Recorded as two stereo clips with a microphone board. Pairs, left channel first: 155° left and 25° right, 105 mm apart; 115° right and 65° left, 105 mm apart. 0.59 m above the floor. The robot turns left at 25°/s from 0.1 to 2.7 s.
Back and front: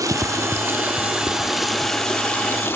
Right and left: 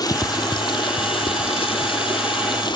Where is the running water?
75° right, 1.1 m; by 2.8 s 140° right, 1.1 m.